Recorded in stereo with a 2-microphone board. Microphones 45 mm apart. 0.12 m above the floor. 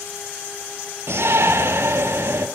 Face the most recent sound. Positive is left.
turn(degrees=-65)  # may be behind; listen again after turning